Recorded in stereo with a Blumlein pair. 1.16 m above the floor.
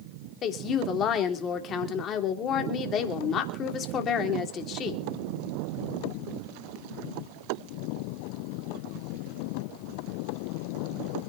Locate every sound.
0.4 s a woman speaking: 30° left, 3 m